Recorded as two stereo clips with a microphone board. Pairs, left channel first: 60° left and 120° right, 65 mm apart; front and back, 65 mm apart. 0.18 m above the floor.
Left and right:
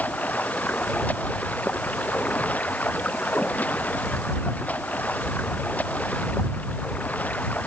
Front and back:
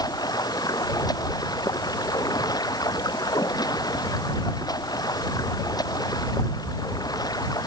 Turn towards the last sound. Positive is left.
turn(degrees=-5)